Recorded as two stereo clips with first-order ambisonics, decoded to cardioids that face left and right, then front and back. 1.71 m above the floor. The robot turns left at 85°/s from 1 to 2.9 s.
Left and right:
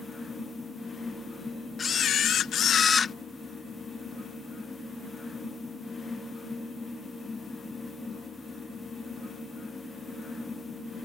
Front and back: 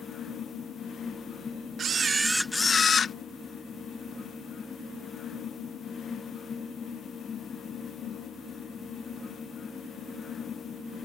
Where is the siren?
No siren in this recording.